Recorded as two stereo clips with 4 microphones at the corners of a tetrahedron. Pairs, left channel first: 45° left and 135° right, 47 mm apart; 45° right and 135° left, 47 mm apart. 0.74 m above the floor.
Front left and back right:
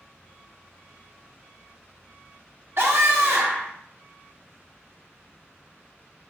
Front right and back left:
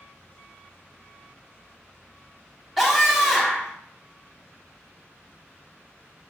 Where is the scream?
140° right, 1.2 m.